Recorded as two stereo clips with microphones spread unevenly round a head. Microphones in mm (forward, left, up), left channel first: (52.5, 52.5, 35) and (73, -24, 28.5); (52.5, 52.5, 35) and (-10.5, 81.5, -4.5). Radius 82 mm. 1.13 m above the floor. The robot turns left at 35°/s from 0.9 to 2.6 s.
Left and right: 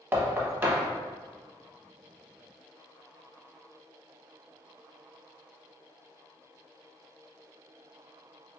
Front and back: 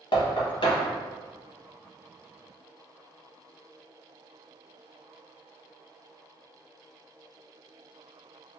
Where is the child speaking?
I don't hear a child speaking.